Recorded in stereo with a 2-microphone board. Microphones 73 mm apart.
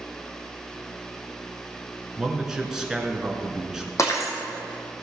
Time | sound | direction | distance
2.2 | a man speaking | 5° right (ahead or behind) | 1.5 m
4.0 | breaking glass | 45° left (ahead or behind) | 2.5 m